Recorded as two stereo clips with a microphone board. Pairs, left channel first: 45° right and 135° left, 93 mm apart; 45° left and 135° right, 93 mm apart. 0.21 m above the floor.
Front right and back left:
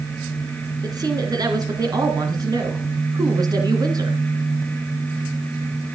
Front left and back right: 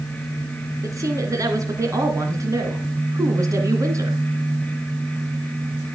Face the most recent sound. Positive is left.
turn(degrees=175)